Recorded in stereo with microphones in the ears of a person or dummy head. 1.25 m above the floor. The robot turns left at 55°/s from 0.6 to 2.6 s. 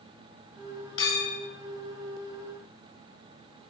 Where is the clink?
30° left (ahead or behind), 3.5 m; by 1.4 s 10° left (ahead or behind), 3.5 m.